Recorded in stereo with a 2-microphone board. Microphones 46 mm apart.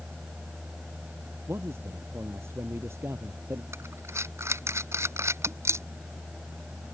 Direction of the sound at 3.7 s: 75° right (ahead or behind).